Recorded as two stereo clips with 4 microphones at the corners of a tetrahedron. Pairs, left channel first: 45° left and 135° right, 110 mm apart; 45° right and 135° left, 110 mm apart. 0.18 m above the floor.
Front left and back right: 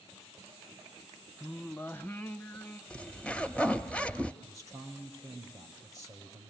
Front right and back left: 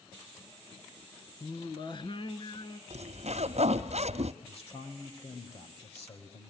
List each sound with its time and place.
1.4 s singing: 25° right, 1.1 m
2.9 s a zipper: 125° left, 1.1 m
4.4 s a man speaking: 75° right, 4.5 m